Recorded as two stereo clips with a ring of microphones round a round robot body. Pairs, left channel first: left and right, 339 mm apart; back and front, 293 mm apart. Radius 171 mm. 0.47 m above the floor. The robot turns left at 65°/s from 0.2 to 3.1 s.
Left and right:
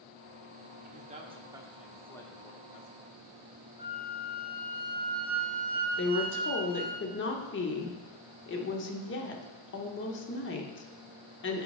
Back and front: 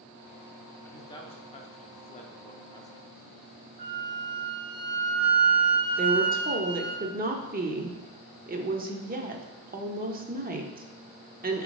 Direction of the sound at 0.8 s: 110° right.